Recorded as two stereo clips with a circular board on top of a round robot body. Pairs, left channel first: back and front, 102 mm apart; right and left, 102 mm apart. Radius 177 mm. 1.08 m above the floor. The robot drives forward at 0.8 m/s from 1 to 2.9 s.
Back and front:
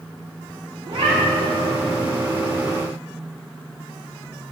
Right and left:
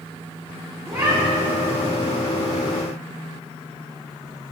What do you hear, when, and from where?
0.8 s a cat meowing: 35° left, 3.5 m; by 1.8 s 45° left, 3 m